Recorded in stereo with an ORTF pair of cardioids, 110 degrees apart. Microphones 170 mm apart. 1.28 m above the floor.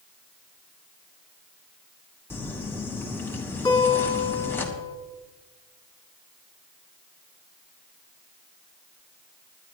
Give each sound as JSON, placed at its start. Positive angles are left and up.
{"t": 2.3, "sound": "crumpling", "azimuth_deg": 15, "distance_m": 2.5}
{"t": 3.6, "sound": "a guitar", "azimuth_deg": 25, "distance_m": 4.5}